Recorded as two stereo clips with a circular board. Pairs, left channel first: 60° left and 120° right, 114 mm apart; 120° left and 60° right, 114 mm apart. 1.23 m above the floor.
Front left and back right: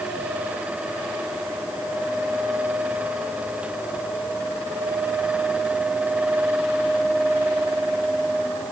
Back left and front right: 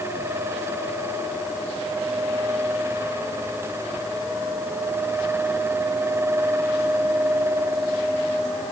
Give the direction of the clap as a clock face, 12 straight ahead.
I don't hear a clap.